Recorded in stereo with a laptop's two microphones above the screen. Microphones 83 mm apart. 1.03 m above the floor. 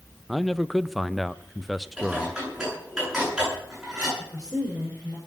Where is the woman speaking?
25° right (ahead or behind), 4 m.